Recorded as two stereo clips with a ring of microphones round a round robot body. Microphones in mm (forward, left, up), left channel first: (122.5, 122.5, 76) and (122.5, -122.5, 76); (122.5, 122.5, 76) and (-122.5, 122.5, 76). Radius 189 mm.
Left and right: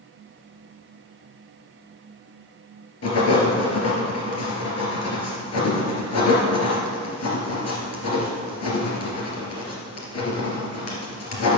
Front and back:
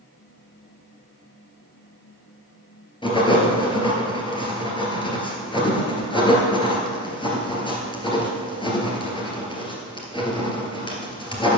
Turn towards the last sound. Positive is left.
turn(degrees=70)